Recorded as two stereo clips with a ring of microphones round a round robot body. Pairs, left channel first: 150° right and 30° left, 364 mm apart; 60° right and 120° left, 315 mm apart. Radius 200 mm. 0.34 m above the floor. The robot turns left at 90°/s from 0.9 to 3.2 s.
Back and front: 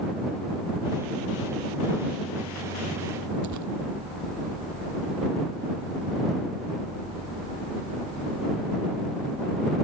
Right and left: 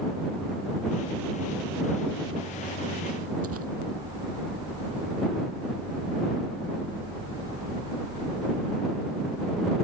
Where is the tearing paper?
75° left.